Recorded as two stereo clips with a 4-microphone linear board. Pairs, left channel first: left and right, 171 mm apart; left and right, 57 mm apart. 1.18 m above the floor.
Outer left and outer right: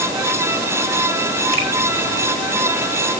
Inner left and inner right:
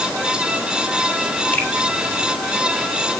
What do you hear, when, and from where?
1.5 s a finger snap: 25° left (ahead or behind), 3.5 m